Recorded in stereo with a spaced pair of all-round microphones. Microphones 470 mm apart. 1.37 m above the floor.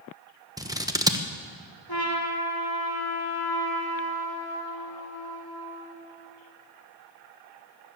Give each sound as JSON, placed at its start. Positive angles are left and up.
{"t": 0.6, "sound": "scissors", "side_deg": -10, "distance_m": 0.9}
{"t": 1.9, "sound": "a trumpet", "side_deg": 50, "distance_m": 3.0}